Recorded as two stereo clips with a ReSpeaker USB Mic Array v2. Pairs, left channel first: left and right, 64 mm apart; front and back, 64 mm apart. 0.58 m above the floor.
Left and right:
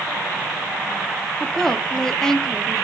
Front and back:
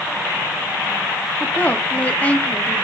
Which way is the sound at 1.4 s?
20° left.